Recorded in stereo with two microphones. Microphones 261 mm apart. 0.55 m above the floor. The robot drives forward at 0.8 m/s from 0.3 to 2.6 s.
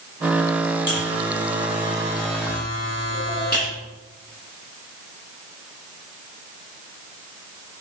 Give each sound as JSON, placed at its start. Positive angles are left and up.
{"t": 0.9, "sound": "a buzzer", "side_deg": 45, "distance_m": 7.5}